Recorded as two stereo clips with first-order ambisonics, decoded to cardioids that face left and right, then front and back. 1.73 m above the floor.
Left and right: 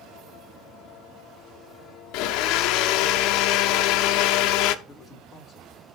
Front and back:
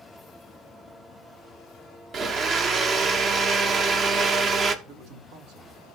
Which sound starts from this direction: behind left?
A blender, at 2.1 s.